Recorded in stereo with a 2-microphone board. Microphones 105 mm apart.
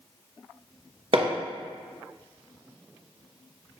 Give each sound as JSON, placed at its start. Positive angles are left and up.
{"t": 1.1, "sound": "hammering", "side_deg": -60, "distance_m": 0.7}